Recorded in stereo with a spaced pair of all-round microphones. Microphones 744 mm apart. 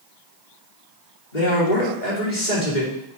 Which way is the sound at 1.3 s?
80° left.